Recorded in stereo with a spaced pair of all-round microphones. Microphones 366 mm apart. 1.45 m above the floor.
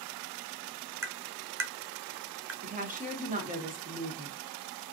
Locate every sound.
1.0 s tapping: 40° right (ahead or behind), 0.5 m
2.6 s a woman speaking: 20° right (ahead or behind), 1.1 m